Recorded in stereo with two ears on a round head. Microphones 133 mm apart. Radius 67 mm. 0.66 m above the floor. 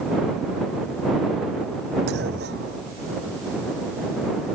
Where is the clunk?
85° right.